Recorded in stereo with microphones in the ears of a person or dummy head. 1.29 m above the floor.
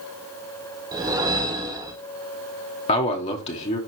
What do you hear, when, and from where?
0.9 s a whoosh: 20° right (ahead or behind), 0.8 m
2.9 s a man speaking: 35° left (ahead or behind), 0.9 m